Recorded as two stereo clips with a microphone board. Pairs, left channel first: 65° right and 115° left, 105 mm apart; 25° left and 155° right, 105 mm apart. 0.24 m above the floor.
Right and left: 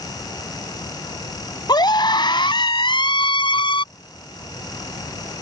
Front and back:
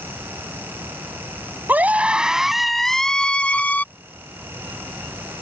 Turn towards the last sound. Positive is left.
turn(degrees=-45)